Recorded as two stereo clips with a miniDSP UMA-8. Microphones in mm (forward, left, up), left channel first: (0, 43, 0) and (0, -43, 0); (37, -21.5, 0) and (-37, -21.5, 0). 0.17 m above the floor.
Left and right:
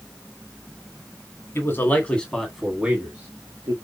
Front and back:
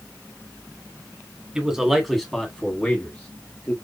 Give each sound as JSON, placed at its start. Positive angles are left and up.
{"t": 1.6, "sound": "a man speaking", "azimuth_deg": 110, "distance_m": 1.8}